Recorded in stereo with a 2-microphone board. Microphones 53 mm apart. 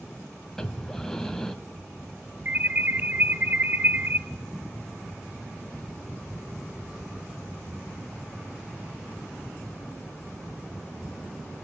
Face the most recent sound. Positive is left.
turn(degrees=-35)  # may be behind; listen again after turning